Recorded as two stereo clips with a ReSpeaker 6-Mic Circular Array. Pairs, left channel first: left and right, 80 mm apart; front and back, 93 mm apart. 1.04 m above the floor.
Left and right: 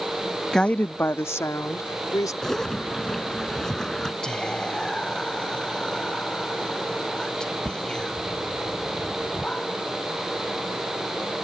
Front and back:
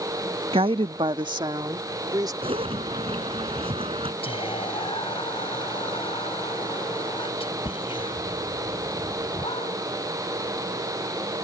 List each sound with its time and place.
0.5 s a woman speaking: 175° left; by 2.3 s 135° left
2.4 s a zipper: 175° left
4.2 s whispering: 10° left